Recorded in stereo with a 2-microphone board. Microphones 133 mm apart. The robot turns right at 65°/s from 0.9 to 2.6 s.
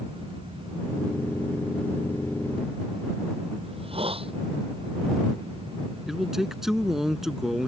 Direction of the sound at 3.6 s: 45° right (ahead or behind).